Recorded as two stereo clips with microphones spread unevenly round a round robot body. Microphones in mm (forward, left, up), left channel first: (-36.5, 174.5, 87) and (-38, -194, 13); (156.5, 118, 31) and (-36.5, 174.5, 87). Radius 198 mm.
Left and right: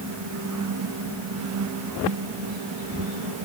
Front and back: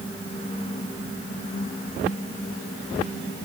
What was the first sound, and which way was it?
Only background noise.